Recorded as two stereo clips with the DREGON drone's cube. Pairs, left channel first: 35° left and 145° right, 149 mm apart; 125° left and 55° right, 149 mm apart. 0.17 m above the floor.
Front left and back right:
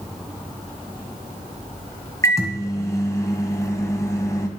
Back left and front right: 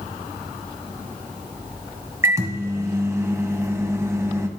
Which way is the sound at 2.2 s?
5° right.